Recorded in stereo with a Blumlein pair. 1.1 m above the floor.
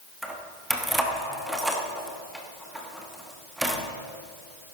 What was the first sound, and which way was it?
Keys jangling, 5° right.